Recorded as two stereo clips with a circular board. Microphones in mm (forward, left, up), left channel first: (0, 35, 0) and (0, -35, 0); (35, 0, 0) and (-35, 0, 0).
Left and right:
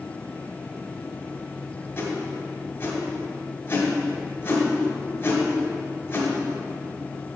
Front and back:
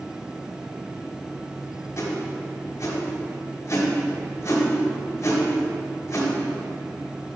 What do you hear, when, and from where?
2.0 s a whoosh: 40° left, 1.7 m